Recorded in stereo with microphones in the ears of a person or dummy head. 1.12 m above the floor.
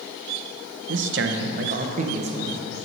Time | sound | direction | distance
0.9 | a man speaking | 60° right (ahead or behind) | 0.8 m